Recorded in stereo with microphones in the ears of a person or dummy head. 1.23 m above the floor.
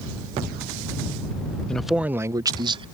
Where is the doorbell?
I don't hear a doorbell.